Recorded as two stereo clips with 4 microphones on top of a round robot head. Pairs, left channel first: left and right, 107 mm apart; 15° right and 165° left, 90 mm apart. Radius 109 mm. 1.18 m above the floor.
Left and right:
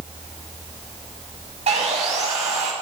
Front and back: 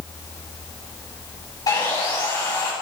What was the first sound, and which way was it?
Sawing, 70° right.